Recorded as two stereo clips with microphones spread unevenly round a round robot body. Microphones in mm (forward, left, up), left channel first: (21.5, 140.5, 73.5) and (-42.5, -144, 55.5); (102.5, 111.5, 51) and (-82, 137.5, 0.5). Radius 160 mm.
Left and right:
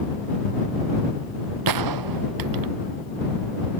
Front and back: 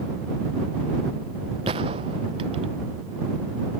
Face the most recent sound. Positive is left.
turn(degrees=-115)